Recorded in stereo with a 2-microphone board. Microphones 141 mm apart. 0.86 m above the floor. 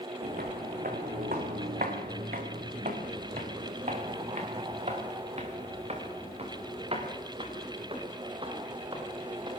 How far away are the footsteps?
About 3.5 m.